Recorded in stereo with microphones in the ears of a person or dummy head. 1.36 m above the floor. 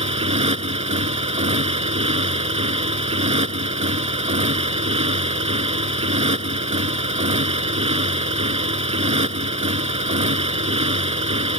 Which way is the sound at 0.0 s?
40° right (ahead or behind).